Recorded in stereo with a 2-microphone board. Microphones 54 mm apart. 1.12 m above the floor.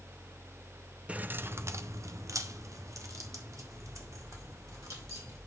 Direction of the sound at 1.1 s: 20° right (ahead or behind).